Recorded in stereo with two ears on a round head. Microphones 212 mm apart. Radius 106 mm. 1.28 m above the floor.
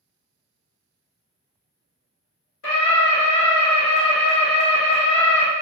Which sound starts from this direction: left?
A scream, at 2.6 s.